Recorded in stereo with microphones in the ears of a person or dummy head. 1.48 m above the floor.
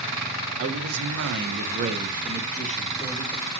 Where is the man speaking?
70° right (ahead or behind), 1.0 m; by 3.4 s 20° left (ahead or behind), 1.1 m.